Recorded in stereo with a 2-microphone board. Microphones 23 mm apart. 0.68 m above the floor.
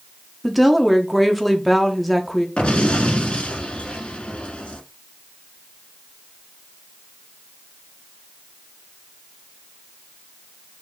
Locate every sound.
0.4 s a woman speaking: centre (ahead or behind), 0.9 m
2.6 s an explosion: 60° left (ahead or behind), 1.4 m